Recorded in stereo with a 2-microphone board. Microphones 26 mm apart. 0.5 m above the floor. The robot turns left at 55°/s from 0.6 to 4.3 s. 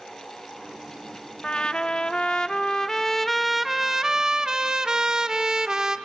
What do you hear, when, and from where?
1.4 s a trumpet: 115° left, 0.6 m; by 6.0 s 45° right, 0.6 m